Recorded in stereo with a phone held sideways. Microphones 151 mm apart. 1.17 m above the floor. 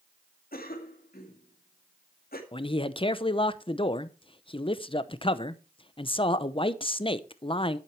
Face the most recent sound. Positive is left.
turn(degrees=35)  # may be behind; listen again after turning